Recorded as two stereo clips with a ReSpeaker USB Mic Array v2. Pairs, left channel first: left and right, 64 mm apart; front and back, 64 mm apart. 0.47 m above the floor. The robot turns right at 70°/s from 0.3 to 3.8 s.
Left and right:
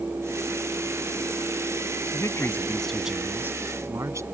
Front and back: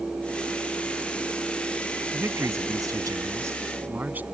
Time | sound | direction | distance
2.1 | a man speaking | 120° left | ?